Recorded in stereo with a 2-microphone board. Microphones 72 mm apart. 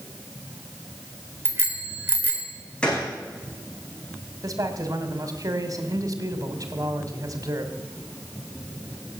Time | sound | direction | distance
1.4 | a bicycle bell | 30° right (ahead or behind) | 3.5 m
2.8 | a gunshot | 15° left (ahead or behind) | 4.5 m
4.4 | a man speaking | 55° right (ahead or behind) | 2 m